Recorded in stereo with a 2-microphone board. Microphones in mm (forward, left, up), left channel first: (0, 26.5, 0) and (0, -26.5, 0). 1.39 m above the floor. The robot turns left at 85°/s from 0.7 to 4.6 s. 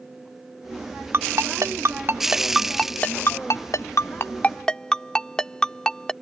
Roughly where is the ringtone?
Right.